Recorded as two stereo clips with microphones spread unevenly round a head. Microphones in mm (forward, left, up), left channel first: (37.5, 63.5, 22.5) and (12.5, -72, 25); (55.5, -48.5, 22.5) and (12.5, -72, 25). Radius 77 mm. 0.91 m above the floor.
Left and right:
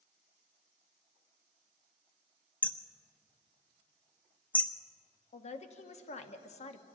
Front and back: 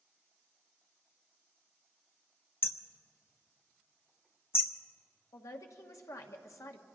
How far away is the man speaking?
About 1.2 m.